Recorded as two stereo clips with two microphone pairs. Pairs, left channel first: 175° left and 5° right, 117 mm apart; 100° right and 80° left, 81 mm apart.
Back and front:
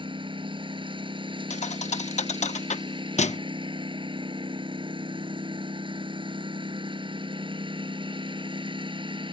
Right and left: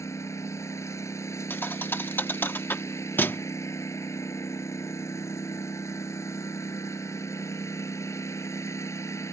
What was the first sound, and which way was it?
A lawn mower, 50° right.